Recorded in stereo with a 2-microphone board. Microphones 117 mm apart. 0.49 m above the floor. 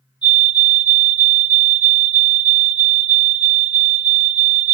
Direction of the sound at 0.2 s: 40° left (ahead or behind).